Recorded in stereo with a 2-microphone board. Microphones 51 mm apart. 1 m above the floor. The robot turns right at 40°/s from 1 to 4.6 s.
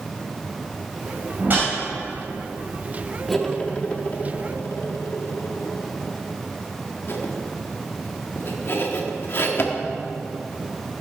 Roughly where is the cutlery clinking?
Centre.